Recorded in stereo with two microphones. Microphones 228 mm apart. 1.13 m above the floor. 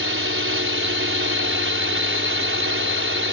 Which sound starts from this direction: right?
A drone, at 0.0 s.